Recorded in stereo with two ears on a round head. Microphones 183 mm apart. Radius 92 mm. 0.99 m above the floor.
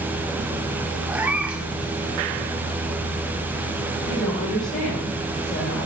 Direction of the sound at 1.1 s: 5° right (ahead or behind).